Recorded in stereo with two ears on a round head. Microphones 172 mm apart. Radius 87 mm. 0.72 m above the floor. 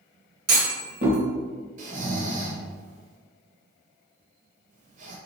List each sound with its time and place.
0.5 s a clunk: 50° right (ahead or behind), 1.4 m
1.8 s snoring: 40° right (ahead or behind), 0.8 m